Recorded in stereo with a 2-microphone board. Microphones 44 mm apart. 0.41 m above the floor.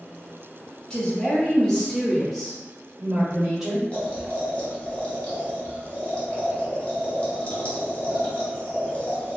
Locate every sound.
0.9 s a woman speaking: 20° left (ahead or behind), 1.0 m; by 3.8 s 10° right (ahead or behind), 1.7 m
3.9 s boiling: 30° left (ahead or behind), 1.1 m